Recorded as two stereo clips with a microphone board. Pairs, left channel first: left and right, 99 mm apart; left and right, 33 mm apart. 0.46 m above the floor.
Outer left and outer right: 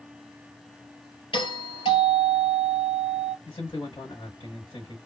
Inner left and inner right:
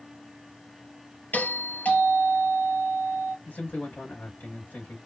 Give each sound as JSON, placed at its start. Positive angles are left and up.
{"t": 1.3, "sound": "a doorbell", "side_deg": 65, "distance_m": 3.5}
{"t": 3.5, "sound": "a man speaking", "side_deg": 70, "distance_m": 3.0}